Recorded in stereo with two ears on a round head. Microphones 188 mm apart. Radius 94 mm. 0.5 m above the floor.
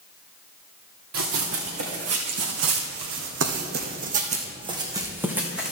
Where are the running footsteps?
70° right (ahead or behind), 2.5 m; by 5.7 s centre (ahead or behind), 2.0 m.